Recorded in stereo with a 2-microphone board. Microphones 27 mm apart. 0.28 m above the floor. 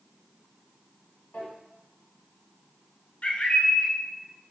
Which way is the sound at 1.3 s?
60° left (ahead or behind).